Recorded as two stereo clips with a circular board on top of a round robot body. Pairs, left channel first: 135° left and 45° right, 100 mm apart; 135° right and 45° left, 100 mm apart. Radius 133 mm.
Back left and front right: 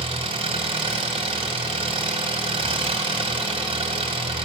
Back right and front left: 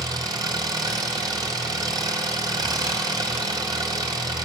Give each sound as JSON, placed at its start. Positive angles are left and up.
{"t": 0.0, "sound": "an engine running", "azimuth_deg": -10, "distance_m": 2.5}